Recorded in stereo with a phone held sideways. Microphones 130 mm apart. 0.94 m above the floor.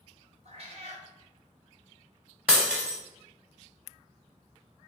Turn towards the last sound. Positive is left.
turn(degrees=-5)  # may be behind; listen again after turning